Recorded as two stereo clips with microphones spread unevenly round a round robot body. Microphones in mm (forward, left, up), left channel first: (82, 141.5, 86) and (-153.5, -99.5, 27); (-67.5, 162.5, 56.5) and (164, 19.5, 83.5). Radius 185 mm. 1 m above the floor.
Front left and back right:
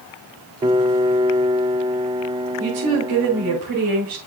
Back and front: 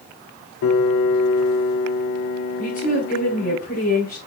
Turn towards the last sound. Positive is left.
turn(degrees=-150)